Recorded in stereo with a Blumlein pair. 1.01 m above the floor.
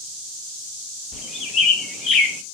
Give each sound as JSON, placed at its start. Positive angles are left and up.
{"t": 1.1, "sound": "a bird", "azimuth_deg": 25, "distance_m": 0.5}